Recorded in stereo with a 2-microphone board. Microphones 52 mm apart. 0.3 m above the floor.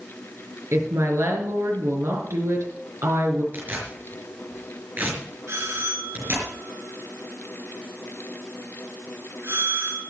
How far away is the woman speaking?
About 4.5 m.